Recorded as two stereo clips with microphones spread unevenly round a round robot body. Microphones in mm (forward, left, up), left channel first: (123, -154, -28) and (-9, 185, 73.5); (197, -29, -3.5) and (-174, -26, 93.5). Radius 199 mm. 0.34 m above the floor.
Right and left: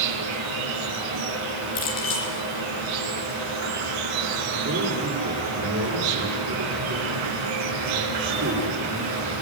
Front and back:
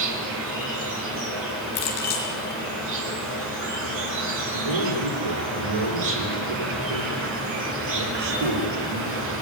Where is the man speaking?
175° left, 9.5 m.